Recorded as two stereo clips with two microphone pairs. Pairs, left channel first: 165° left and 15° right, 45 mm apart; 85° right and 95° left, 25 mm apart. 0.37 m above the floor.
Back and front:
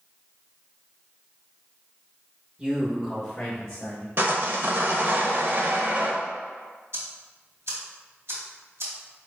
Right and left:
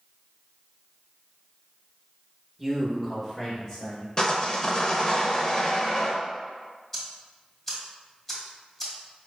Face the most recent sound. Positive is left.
turn(degrees=-10)